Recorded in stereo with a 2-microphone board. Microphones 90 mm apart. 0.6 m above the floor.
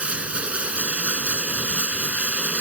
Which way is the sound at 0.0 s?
15° right (ahead or behind).